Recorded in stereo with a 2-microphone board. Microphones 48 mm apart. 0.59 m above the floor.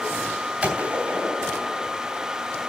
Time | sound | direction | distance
0.6 | a gunshot | 25° right (ahead or behind) | 3 m